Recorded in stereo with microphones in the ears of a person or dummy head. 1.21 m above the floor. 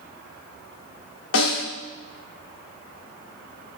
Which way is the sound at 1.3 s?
80° left.